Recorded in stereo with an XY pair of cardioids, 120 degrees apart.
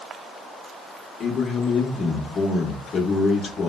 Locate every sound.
1.2 s a man speaking: 35° left, 1.1 m